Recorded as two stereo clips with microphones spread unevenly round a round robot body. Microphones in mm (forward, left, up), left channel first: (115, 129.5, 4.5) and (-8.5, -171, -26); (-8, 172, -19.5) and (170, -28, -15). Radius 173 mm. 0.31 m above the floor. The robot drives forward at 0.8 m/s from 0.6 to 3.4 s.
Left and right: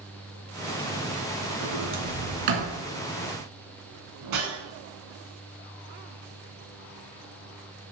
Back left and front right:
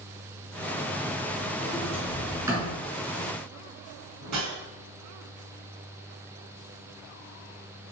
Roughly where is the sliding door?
Behind right.